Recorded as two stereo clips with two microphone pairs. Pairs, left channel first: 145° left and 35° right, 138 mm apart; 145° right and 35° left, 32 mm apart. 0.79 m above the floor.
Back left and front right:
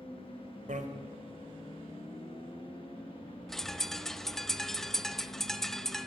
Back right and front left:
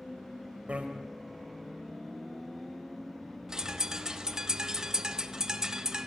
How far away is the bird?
About 0.9 m.